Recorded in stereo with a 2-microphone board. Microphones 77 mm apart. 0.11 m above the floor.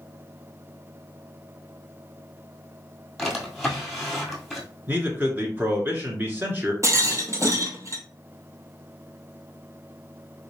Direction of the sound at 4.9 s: 25° right (ahead or behind).